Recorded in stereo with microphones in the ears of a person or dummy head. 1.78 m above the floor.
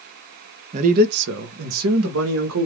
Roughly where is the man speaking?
Right.